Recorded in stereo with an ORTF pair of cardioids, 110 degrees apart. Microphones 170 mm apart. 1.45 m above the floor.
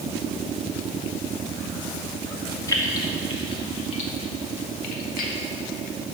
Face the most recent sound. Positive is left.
turn(degrees=65)